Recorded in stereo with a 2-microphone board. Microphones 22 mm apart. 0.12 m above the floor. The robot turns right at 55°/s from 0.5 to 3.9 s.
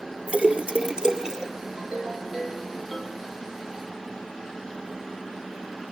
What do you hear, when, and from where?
0.3 s a splash: 75° right, 2.0 m; by 1.5 s 20° right, 2.0 m
1.8 s a ringtone: 55° right, 2.5 m; by 3.3 s 35° left, 2.5 m